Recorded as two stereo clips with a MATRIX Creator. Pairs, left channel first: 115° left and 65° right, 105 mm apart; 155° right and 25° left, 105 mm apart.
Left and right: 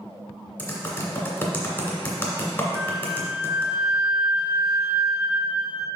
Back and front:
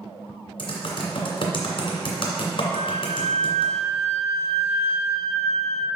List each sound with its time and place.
0.6 s typing on a keyboard: 175° right, 2 m
2.8 s a flute: 10° left, 0.7 m